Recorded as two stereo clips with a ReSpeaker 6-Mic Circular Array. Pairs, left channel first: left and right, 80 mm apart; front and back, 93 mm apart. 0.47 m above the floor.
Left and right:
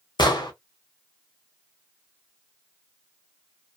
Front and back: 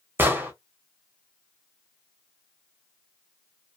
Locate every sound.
0.2 s an explosion: 115° left, 0.8 m